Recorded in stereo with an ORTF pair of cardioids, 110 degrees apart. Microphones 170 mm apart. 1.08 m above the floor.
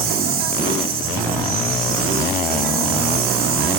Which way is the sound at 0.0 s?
65° right.